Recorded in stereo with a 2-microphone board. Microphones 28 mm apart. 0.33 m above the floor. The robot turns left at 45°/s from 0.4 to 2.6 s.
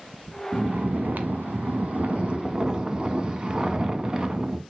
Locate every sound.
0.5 s snoring: 60° right, 0.8 m; by 4.6 s 150° right, 0.8 m